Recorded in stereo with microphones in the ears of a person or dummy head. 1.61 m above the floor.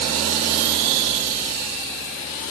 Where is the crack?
No crack in this recording.